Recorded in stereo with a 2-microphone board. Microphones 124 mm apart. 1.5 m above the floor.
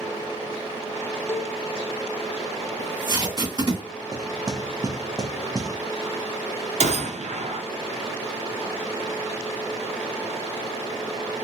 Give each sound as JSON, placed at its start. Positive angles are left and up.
{"t": 1.3, "sound": "a cowbell", "side_deg": 20, "distance_m": 0.5}
{"t": 2.8, "sound": "tape being pulled", "side_deg": -35, "distance_m": 2.0}
{"t": 4.1, "sound": "knocking", "side_deg": -30, "distance_m": 0.7}
{"t": 6.8, "sound": "a gunshot", "side_deg": -65, "distance_m": 0.7}